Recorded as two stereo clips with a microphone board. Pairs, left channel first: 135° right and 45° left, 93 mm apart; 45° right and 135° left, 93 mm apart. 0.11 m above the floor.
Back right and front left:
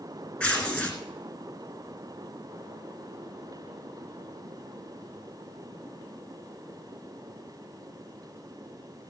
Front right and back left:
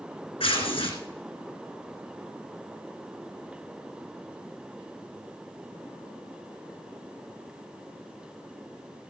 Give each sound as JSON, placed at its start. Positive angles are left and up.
{"t": 0.4, "sound": "tearing paper", "azimuth_deg": -65, "distance_m": 1.9}